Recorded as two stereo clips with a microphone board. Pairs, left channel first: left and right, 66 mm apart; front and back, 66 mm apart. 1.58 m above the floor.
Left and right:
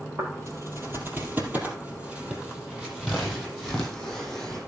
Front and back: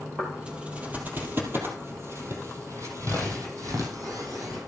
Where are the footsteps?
105° right, 2.5 m; by 4.6 s 175° left, 4 m.